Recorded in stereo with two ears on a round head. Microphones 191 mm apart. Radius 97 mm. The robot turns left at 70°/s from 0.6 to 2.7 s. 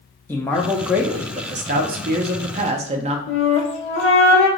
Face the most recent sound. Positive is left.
turn(degrees=65)  # may be behind; listen again after turning